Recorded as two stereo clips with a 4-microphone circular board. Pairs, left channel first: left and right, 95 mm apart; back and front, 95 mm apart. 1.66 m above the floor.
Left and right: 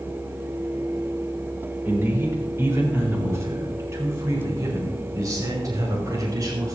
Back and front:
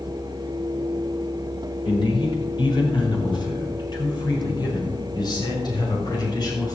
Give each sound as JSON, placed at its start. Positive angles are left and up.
{"t": 1.9, "sound": "a man speaking", "azimuth_deg": -155, "distance_m": 4.0}